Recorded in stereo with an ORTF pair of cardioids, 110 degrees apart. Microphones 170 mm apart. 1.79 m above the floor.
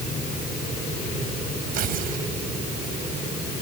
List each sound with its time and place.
1.7 s tearing paper: 65° right